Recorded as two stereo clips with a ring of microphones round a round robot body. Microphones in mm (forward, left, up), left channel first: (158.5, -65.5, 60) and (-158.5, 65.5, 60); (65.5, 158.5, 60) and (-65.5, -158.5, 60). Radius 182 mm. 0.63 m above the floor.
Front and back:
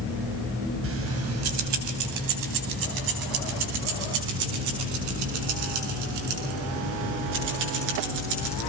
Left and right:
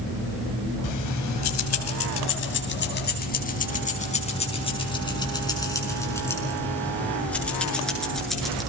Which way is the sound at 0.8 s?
105° left.